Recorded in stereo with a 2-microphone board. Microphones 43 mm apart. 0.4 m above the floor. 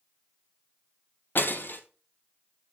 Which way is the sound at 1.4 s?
50° left (ahead or behind).